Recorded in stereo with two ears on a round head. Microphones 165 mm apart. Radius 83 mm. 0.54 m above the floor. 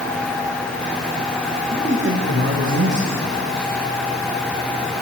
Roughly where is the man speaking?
Right.